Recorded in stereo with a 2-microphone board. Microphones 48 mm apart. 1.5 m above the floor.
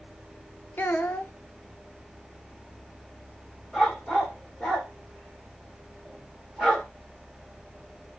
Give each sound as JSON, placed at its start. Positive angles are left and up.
{"t": 0.8, "sound": "a child speaking", "side_deg": 40, "distance_m": 1.0}
{"t": 3.7, "sound": "a dog barking", "side_deg": 5, "distance_m": 3.5}